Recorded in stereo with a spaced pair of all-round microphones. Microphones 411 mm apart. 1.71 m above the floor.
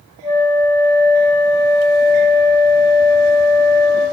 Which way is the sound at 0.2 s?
25° left (ahead or behind).